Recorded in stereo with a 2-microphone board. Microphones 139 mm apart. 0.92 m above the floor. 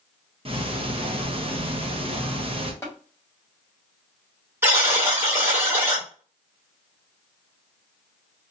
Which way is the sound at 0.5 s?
40° right (ahead or behind).